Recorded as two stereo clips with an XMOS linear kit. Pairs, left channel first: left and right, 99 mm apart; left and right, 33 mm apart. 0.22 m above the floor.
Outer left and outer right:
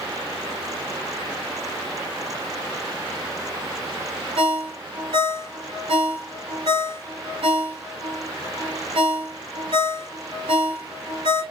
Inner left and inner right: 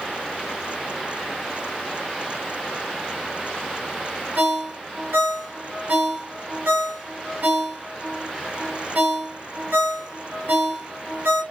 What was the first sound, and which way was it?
A ringtone, 70° right (ahead or behind).